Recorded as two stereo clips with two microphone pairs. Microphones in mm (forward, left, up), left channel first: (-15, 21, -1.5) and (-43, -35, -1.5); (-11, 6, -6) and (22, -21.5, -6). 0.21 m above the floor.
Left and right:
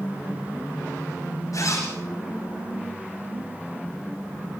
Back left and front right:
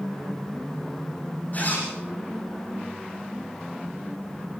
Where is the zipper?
90° left, 9 m.